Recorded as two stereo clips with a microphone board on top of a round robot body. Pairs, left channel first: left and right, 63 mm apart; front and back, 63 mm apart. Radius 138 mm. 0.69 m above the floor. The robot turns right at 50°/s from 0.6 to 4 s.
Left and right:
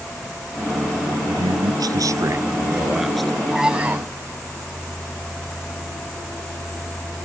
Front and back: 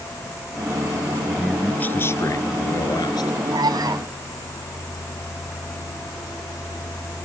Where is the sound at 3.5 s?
175° right; by 4.1 s 150° right.